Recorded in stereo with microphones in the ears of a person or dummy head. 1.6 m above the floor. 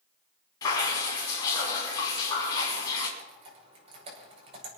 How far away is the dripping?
About 6.5 m.